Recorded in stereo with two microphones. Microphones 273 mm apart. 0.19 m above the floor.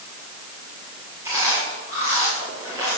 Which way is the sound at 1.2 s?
10° right (ahead or behind).